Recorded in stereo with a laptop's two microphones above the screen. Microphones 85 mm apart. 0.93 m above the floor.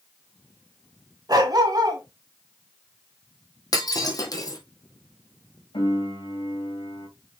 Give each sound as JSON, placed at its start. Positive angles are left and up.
{"t": 1.3, "sound": "a dog barking", "side_deg": -50, "distance_m": 1.5}
{"t": 3.7, "sound": "breaking glass", "side_deg": 45, "distance_m": 2.0}
{"t": 5.7, "sound": "a piano", "side_deg": 75, "distance_m": 3.5}